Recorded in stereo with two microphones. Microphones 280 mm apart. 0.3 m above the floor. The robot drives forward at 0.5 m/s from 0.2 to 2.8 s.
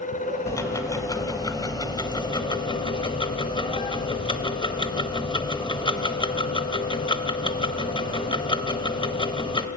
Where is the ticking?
10° left (ahead or behind), 2.0 m; by 9.7 s 15° left (ahead or behind), 1.2 m.